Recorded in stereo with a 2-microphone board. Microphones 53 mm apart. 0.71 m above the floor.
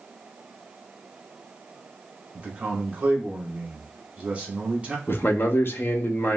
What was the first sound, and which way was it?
A man speaking, 25° right (ahead or behind).